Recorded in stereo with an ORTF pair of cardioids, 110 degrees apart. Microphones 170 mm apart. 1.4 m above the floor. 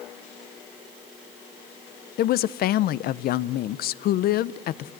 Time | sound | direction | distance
2.2 | a woman speaking | 65° left | 0.6 m